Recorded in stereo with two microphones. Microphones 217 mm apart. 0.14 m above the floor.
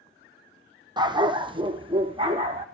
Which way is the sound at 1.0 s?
20° right (ahead or behind).